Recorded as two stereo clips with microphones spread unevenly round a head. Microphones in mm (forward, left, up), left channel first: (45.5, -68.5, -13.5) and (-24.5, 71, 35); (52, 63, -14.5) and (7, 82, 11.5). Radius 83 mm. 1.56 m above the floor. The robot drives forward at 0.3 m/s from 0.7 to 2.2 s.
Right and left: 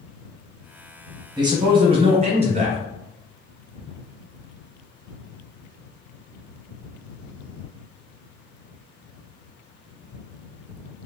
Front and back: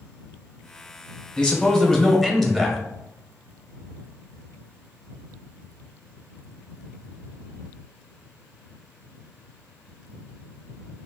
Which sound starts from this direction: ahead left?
A man speaking, at 1.4 s.